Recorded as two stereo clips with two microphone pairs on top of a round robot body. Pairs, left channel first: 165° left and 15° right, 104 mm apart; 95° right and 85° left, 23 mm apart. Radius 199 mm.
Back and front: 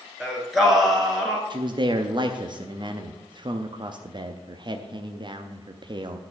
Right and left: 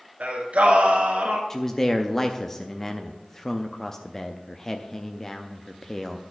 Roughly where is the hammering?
I don't hear hammering.